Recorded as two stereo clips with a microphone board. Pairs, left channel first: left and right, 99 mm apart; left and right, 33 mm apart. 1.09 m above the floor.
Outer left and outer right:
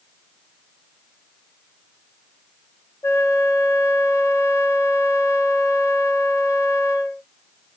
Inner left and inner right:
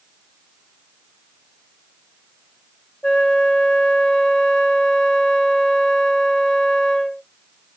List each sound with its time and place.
3.0 s a flute: 30° left (ahead or behind), 0.5 m